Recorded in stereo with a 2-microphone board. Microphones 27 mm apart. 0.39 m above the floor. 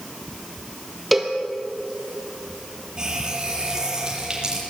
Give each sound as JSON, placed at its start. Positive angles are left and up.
{"t": 1.1, "sound": "a cowbell", "side_deg": -5, "distance_m": 2.5}
{"t": 3.0, "sound": "a running tap", "side_deg": -25, "distance_m": 8.0}